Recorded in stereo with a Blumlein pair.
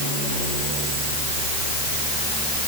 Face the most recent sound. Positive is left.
No sound to turn to.